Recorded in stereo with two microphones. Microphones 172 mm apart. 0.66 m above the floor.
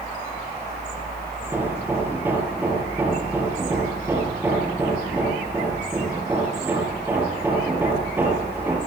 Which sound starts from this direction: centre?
Hammering, at 1.4 s.